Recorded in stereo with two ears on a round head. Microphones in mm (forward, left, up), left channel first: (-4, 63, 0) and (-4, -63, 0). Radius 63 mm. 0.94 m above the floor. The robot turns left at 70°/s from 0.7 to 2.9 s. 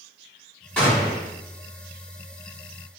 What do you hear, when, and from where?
0.8 s a gunshot: 175° left, 1.5 m; by 1.3 s 140° left, 1.5 m